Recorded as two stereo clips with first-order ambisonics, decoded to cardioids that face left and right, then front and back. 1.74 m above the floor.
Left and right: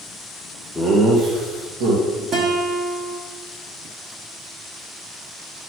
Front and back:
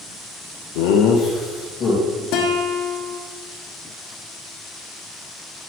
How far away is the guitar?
About 1.2 m.